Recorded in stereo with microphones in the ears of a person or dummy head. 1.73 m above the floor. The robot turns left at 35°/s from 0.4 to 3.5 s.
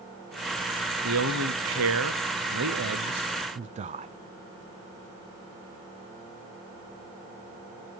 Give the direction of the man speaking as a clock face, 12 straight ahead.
2 o'clock.